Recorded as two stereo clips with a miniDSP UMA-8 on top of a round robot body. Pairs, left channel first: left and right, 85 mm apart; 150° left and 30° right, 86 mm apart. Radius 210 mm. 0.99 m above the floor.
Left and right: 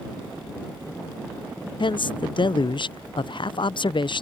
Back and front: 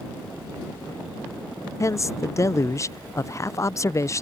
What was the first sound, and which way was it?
A man speaking, 100° left.